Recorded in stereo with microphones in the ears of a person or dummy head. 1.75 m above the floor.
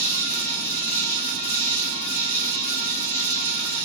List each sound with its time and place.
0.0 s an insect: 45° right (ahead or behind), 2 m